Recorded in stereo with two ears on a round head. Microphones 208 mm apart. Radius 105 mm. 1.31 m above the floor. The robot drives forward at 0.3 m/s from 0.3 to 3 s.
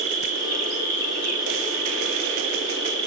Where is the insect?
30° right (ahead or behind), 7 m.